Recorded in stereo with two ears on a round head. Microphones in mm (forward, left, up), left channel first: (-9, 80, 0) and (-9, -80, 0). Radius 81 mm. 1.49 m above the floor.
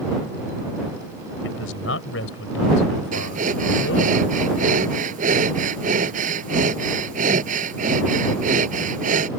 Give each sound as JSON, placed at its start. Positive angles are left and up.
{"t": 1.4, "sound": "a man speaking", "side_deg": 80}
{"t": 3.1, "sound": "breathing", "side_deg": -50}